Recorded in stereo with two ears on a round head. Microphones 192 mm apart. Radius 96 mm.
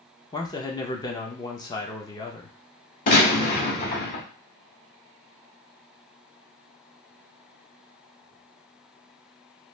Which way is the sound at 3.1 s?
45° left (ahead or behind).